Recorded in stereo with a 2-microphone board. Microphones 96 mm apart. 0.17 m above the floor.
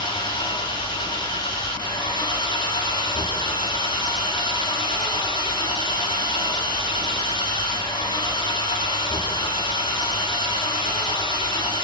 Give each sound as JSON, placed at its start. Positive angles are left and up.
{"t": 0.0, "sound": "an engine running", "side_deg": 50, "distance_m": 7.0}